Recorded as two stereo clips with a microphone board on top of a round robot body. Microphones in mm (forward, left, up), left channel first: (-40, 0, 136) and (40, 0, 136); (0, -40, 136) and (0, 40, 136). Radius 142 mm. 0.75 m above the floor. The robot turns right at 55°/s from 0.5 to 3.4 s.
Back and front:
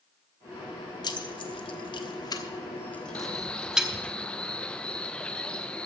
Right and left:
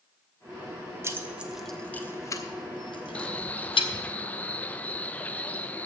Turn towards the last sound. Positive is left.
turn(degrees=-125)